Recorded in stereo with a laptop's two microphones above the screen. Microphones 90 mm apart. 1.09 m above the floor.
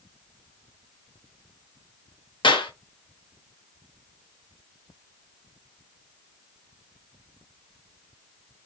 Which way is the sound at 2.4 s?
60° left (ahead or behind).